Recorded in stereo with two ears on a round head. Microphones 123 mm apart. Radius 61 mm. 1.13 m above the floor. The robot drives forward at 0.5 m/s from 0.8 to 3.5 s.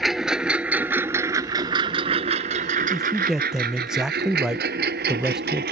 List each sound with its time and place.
0.0 s a lawn mower: centre (ahead or behind); by 5.7 s 80° right
2.9 s a man speaking: 5° right (ahead or behind)